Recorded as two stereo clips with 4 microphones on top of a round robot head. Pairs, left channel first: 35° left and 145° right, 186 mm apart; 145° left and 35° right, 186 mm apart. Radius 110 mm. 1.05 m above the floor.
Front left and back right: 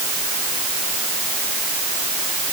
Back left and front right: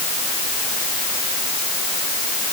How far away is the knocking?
I don't hear knocking.